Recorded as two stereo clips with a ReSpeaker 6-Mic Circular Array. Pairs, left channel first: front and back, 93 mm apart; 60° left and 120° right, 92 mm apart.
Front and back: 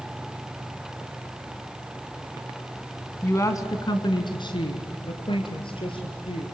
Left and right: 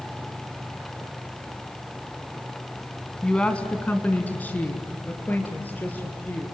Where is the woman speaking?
10° right, 1.5 m.